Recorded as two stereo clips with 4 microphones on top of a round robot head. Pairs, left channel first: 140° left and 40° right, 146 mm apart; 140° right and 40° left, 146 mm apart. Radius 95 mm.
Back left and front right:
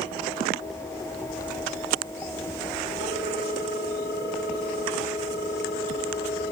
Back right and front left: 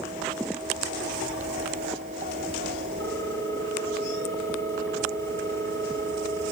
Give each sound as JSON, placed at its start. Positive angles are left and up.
{"t": 3.0, "sound": "a ringtone", "azimuth_deg": 150, "distance_m": 6.0}